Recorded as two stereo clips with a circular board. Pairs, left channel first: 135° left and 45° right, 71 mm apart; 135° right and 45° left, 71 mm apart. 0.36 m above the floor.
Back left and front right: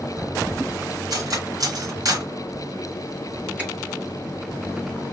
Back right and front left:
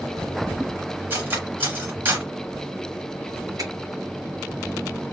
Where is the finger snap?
20° left, 2.5 m.